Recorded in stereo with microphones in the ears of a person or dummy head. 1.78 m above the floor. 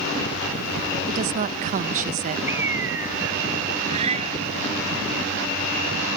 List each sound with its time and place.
1.1 s a woman speaking: 35° right (ahead or behind)
2.5 s a bird: 10° right (ahead or behind)
3.9 s a cat meowing: 35° right (ahead or behind)